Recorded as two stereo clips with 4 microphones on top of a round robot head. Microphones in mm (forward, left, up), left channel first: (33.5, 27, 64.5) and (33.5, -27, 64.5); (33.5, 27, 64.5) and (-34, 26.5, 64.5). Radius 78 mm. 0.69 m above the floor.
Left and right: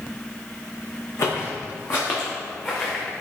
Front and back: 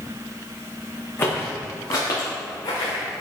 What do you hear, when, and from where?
1.2 s footsteps: 60° left, 2 m; by 3.0 s 25° left, 3 m